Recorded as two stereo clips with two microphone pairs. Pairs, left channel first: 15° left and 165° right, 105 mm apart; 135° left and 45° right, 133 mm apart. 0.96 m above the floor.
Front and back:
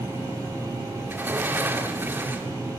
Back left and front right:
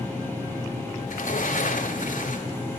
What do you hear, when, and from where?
1.1 s a sliding door: 130° left, 2 m